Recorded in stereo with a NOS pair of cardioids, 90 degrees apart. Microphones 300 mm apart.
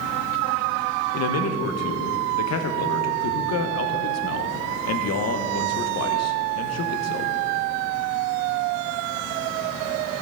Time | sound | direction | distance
1.1 | a man speaking | 55° left | 1.0 m